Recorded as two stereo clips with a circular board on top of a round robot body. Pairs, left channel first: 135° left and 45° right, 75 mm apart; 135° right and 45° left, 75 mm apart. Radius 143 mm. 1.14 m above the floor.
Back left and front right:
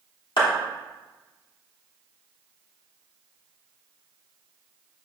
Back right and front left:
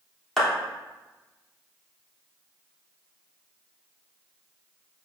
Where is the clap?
140° left, 3.5 m.